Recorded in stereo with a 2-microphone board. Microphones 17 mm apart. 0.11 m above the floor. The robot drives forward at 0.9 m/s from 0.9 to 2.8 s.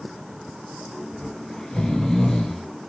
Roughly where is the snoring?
Left.